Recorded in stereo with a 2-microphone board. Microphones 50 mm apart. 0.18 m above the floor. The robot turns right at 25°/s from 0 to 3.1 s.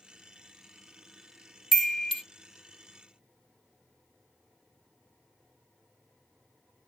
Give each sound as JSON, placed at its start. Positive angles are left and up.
{"t": 1.7, "sound": "a chime", "side_deg": 0, "distance_m": 0.5}